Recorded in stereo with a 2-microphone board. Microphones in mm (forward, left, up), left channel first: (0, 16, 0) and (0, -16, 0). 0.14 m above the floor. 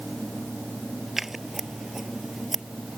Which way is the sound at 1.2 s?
10° right (ahead or behind).